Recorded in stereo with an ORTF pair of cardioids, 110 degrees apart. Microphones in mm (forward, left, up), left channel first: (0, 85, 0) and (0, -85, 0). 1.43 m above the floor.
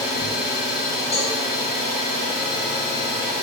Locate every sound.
0.0 s an engine running: 65° left, 1.7 m
1.1 s a cowbell: 40° left, 1.2 m